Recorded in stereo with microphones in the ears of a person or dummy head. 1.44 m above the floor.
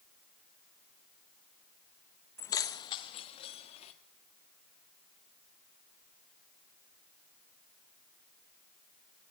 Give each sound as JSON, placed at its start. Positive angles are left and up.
{"t": 2.4, "sound": "keys jangling", "side_deg": 15, "distance_m": 0.8}